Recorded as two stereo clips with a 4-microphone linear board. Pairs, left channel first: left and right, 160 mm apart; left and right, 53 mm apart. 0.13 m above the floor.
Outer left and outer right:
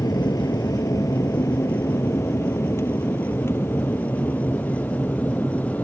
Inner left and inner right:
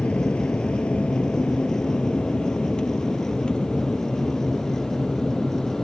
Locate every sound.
0.0 s an aircraft: 25° left (ahead or behind); by 5.8 s 10° left (ahead or behind)